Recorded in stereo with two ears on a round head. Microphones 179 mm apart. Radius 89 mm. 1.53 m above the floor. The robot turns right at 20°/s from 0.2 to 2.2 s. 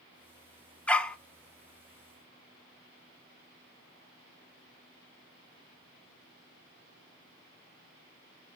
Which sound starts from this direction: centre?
A dog barking, at 0.9 s.